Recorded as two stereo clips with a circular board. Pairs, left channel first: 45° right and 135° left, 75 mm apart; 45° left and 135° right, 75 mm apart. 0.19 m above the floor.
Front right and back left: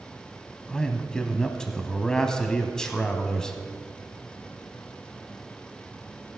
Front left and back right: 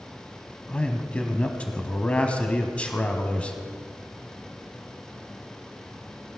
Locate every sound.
0.7 s a man speaking: 15° left, 1.0 m